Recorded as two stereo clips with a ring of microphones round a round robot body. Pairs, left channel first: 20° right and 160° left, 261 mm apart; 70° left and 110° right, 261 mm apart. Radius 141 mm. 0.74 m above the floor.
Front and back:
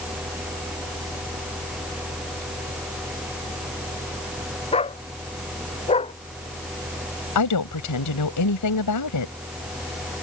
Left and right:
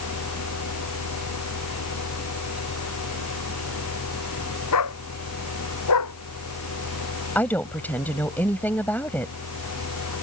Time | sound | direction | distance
4.7 | a dog barking | 45° left | ?
7.3 | a woman speaking | 15° right | ?